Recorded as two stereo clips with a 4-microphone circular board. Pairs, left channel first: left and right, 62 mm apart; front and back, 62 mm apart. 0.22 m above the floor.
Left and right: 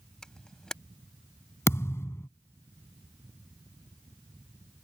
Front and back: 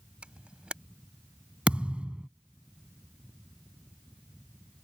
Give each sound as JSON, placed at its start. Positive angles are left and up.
{"t": 0.2, "sound": "a camera shutter", "azimuth_deg": 150}
{"t": 1.7, "sound": "a thud", "azimuth_deg": 115}